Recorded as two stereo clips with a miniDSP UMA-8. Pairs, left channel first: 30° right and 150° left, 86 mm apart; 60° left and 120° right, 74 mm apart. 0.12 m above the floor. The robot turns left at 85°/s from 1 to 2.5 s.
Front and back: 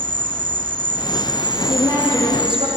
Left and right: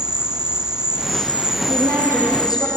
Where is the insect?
160° left, 0.8 m; by 2.8 s 35° left, 0.8 m.